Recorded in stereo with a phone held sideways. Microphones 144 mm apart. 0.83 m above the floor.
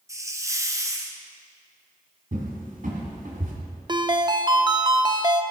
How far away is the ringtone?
About 0.5 m.